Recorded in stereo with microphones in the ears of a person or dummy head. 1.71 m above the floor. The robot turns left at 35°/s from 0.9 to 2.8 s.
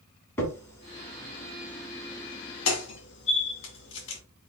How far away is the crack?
About 1.8 m.